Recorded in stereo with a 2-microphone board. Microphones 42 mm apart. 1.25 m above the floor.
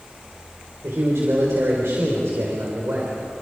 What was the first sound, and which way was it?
A man speaking, 90° right.